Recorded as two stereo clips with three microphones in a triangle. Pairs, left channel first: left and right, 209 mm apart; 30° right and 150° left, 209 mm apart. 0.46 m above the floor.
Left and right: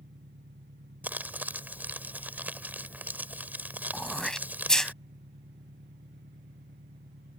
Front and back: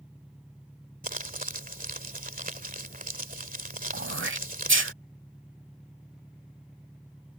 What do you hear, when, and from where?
0.0 s an engine running: 125° right
1.0 s crumpling: 170° right
3.9 s throat clearing: straight behind